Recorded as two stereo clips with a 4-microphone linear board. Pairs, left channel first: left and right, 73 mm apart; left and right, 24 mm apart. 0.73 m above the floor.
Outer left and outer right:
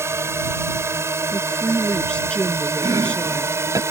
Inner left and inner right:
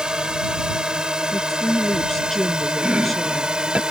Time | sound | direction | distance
0.0 | a drone | 35° right (ahead or behind) | ?
1.3 | a woman speaking | 15° left (ahead or behind) | ?
2.8 | chopping | 55° right (ahead or behind) | ?